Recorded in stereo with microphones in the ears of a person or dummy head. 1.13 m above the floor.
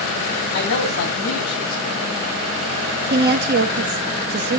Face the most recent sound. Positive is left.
turn(degrees=-50)  # may be behind; listen again after turning